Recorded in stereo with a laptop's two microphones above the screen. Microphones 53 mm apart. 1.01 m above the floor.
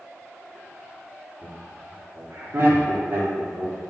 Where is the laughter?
60° right (ahead or behind), 2 m; by 3.8 s 30° right (ahead or behind), 3 m.